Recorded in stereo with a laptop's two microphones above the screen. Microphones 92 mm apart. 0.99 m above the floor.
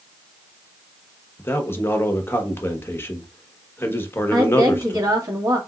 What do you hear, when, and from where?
1.4 s a man speaking: 25° left (ahead or behind), 1.0 m
4.3 s a woman speaking: 40° right (ahead or behind), 1.6 m